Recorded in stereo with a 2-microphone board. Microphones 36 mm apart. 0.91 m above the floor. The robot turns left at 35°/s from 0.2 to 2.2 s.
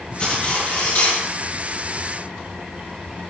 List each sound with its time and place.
0.2 s cutlery clinking: 150° left, 6 m; by 1.2 s 115° left, 6 m